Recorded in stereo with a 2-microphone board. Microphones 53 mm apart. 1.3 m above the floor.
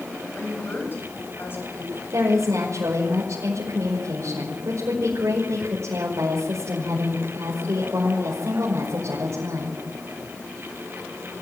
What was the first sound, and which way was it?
A woman speaking, 50° left (ahead or behind).